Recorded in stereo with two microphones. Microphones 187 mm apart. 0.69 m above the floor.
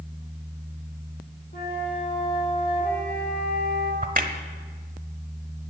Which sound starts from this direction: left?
A flute, at 1.5 s.